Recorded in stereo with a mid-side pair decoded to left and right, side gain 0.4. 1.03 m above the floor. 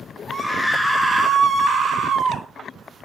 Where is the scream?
20° left, 0.9 m; by 2.5 s 60° right, 1.7 m.